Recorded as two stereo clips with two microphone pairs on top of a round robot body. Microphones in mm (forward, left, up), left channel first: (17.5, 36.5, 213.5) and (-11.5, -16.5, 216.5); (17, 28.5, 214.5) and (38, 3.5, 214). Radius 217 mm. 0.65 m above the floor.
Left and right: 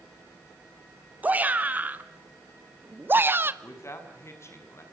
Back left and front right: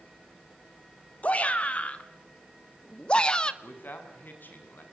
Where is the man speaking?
105° left, 6 m.